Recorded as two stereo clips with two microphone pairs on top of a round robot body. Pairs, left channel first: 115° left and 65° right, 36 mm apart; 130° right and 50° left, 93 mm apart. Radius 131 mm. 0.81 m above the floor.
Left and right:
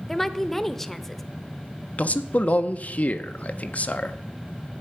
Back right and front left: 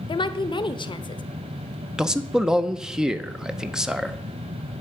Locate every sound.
0.1 s a woman speaking: 165° right, 0.8 m
2.0 s a man speaking: 120° left, 0.8 m